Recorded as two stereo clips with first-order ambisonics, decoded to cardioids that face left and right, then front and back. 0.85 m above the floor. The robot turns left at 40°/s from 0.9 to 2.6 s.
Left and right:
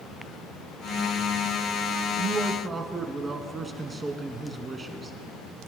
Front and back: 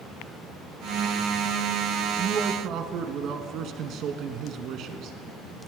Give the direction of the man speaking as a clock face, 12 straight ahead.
5 o'clock.